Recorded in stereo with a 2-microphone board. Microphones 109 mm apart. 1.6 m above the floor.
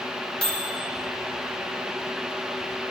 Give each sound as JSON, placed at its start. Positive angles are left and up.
{"t": 0.4, "sound": "a microwave", "side_deg": 10, "distance_m": 1.3}